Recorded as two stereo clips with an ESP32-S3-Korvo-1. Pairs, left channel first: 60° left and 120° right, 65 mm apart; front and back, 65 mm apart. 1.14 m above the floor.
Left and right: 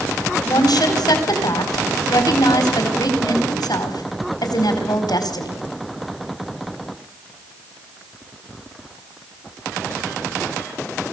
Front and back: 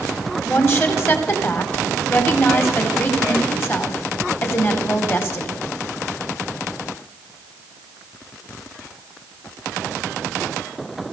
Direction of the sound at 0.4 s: 55° left.